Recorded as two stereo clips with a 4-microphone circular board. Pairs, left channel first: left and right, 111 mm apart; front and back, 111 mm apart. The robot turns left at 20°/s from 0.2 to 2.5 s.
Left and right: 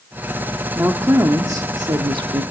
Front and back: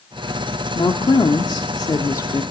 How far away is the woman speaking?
About 1.3 m.